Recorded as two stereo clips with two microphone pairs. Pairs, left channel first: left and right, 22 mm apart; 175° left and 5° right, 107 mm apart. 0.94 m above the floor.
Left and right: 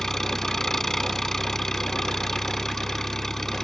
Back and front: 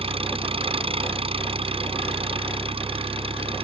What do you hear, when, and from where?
0.0 s an engine running: 25° left